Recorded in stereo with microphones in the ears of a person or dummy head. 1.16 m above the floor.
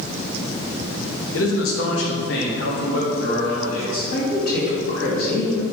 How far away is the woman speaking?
About 2 m.